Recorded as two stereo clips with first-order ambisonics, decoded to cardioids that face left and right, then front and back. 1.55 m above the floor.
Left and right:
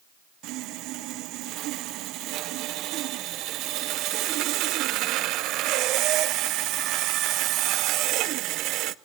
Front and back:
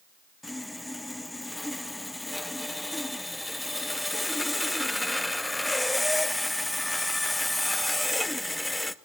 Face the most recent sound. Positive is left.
turn(degrees=-85)